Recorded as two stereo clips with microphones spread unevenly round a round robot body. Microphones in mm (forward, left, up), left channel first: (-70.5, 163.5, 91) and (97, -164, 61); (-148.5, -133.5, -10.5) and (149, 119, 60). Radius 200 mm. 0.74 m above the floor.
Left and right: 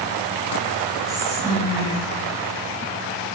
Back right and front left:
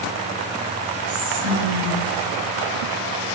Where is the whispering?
15° left, 1.2 m.